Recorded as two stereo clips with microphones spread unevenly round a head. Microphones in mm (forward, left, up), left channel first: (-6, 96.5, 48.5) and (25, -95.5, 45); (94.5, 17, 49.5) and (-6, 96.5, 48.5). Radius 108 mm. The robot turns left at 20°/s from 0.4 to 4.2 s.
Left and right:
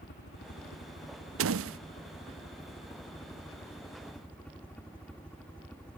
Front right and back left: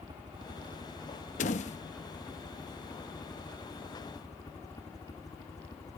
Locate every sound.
0.0 s a helicopter: 90° left; by 6.0 s 15° left
1.4 s a door slam: 75° right; by 1.8 s 85° right